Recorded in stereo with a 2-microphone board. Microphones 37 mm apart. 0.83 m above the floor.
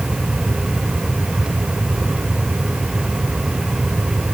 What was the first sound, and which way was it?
Only background noise.